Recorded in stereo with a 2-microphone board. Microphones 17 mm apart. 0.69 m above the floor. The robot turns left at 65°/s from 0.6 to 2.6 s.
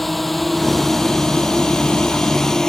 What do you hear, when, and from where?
0.0 s a drone: 10° left (ahead or behind); by 2.7 s 40° left (ahead or behind)